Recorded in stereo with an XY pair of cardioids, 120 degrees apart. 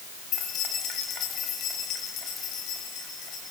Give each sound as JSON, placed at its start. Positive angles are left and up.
{"t": 0.3, "sound": "keys jangling", "azimuth_deg": 60, "distance_m": 4.0}